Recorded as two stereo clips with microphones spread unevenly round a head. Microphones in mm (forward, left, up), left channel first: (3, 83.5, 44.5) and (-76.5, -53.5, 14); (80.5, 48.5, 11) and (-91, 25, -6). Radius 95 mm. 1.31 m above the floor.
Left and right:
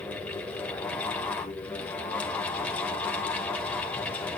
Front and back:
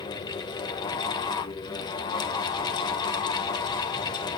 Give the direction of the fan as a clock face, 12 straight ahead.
12 o'clock.